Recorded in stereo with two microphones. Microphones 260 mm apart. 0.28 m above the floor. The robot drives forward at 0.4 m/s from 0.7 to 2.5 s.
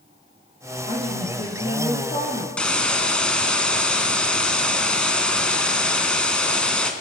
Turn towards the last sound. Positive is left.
turn(degrees=5)  # may be behind; listen again after turning